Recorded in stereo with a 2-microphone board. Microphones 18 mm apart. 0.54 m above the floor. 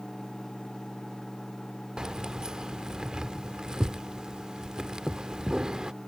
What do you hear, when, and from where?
2.0 s keys jangling: 50° right (ahead or behind)